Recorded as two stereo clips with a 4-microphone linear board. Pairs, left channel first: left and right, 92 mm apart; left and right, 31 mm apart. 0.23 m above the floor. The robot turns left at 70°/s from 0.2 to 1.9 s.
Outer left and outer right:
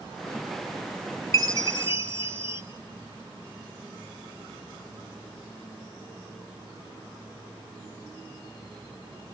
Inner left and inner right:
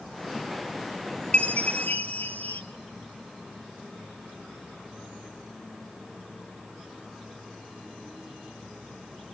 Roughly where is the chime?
Behind left.